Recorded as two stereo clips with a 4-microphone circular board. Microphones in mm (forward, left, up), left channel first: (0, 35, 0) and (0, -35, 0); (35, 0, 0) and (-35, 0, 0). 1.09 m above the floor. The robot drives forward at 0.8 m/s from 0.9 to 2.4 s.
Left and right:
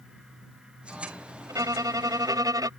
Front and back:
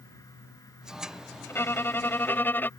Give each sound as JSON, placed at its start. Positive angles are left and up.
{"t": 1.5, "sound": "a violin", "azimuth_deg": -55}